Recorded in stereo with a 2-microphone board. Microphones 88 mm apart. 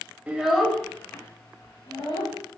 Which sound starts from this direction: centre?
A child speaking, at 0.3 s.